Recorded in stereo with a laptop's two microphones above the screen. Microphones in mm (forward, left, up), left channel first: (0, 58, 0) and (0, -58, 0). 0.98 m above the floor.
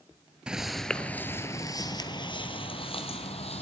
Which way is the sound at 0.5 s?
10° right (ahead or behind).